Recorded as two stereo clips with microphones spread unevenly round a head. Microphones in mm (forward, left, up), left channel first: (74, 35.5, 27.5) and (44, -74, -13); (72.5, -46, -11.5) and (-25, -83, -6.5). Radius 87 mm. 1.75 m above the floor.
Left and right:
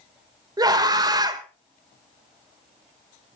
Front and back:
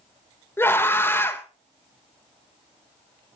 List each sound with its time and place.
0.6 s a scream: 50° right, 3 m